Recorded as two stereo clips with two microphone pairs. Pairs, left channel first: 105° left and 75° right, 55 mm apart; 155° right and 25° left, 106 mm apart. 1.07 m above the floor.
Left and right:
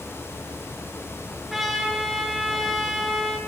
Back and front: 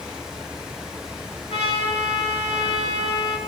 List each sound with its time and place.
1.5 s a trumpet: 160° right, 3 m